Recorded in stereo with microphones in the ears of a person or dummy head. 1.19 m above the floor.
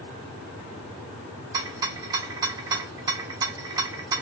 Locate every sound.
1.5 s a rattle: 25° right (ahead or behind), 0.7 m